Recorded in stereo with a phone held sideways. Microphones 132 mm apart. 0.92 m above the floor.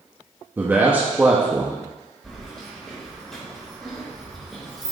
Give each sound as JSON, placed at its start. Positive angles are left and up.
{"t": 0.6, "sound": "a man speaking", "side_deg": -15, "distance_m": 1.1}
{"t": 2.2, "sound": "keys jangling", "side_deg": 5, "distance_m": 3.0}